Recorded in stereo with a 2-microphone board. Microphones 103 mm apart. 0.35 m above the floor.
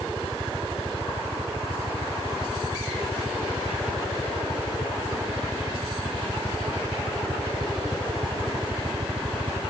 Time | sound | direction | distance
0.0 | a helicopter | 50° right (ahead or behind) | ?